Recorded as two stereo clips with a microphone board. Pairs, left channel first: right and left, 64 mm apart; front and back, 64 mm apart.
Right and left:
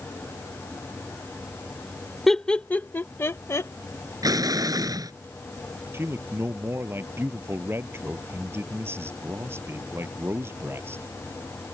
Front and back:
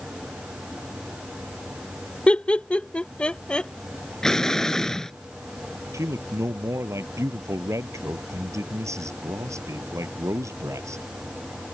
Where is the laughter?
10° right; by 3.7 s 75° right.